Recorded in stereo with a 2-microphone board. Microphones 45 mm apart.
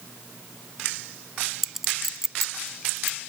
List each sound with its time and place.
1.6 s a clink: 5° right (ahead or behind)